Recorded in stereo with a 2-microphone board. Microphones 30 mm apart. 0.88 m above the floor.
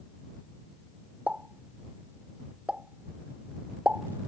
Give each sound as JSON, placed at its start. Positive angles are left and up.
{"t": 1.3, "sound": "a pop", "side_deg": -60}